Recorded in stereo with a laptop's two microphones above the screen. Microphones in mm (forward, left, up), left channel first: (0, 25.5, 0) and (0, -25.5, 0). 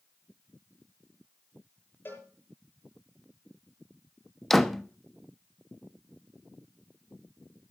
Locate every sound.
2.0 s a cowbell: 40° left (ahead or behind), 8.5 m
4.5 s a door slam: centre (ahead or behind), 1.0 m